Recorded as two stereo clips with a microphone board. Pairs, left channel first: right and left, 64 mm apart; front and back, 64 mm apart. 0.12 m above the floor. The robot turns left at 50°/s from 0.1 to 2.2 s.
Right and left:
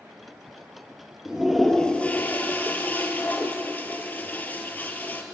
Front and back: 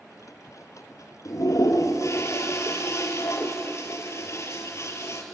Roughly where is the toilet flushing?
Ahead.